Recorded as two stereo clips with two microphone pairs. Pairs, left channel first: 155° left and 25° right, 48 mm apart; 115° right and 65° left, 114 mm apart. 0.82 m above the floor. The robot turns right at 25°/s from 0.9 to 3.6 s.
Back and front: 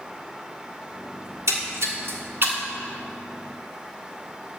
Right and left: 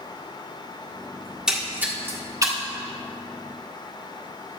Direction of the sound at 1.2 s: 20° right.